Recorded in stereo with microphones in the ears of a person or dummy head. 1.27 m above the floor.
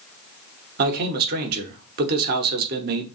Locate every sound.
0.8 s a man speaking: 55° right (ahead or behind), 0.9 m